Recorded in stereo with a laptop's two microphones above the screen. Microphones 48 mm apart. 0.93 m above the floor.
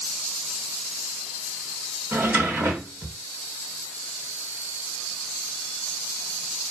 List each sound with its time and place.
2.1 s a drawer: 45° right (ahead or behind), 6 m